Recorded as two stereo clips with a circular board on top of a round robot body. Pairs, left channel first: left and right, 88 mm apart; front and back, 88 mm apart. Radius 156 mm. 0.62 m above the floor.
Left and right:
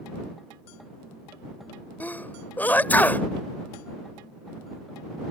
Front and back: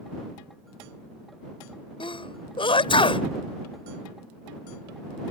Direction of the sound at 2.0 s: 20° left.